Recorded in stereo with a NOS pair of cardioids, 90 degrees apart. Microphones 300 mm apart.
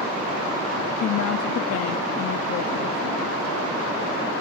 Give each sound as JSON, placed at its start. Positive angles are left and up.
{"t": 1.0, "sound": "a woman speaking", "azimuth_deg": 55, "distance_m": 0.5}